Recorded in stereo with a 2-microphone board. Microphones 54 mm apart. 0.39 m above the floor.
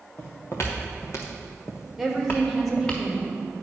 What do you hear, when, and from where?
0.2 s footsteps: 50° left (ahead or behind), 2 m; by 3.0 s 20° left (ahead or behind), 1.9 m
2.0 s a woman speaking: 5° right (ahead or behind), 1.4 m